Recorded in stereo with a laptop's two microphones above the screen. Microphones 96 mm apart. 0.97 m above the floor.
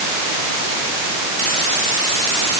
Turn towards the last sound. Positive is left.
No sound to turn to.